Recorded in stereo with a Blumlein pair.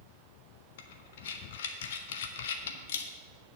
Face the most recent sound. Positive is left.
turn(degrees=60)